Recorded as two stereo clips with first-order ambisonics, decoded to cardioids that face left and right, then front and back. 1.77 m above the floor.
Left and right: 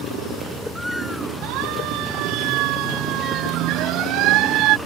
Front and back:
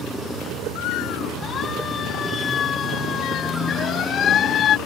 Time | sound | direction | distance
1.4 | a siren | 60° right | ?